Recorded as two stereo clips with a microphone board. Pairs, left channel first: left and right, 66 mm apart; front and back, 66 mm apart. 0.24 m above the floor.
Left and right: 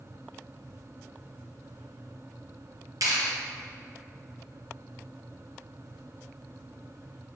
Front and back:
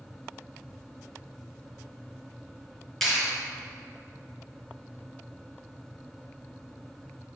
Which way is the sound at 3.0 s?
85° right.